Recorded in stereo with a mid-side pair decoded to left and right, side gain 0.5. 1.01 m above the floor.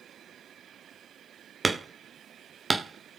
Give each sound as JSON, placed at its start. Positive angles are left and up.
{"t": 1.6, "sound": "hammering", "azimuth_deg": -25, "distance_m": 0.7}